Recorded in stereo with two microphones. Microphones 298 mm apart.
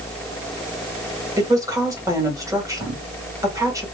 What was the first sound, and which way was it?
A woman speaking, 10° right (ahead or behind).